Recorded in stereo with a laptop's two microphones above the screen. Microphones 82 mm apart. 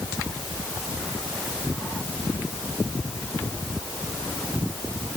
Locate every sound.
Only background noise.